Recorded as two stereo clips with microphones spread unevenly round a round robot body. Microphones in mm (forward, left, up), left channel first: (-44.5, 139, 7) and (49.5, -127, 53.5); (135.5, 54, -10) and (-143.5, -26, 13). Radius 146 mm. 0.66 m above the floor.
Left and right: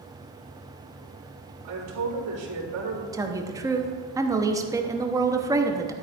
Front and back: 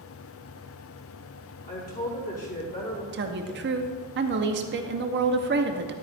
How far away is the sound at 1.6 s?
About 3.5 m.